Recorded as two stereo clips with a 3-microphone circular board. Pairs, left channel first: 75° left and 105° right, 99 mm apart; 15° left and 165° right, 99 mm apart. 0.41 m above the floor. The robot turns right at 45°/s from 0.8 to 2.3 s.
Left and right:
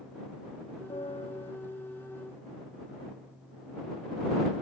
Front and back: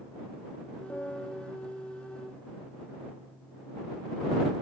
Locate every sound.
0.9 s a piano: 85° left; by 1.5 s 110° left